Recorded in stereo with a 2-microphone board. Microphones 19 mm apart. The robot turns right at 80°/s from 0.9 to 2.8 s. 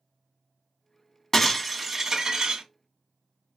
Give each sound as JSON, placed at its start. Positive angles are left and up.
{"t": 1.3, "sound": "breaking glass", "azimuth_deg": 150, "distance_m": 1.4}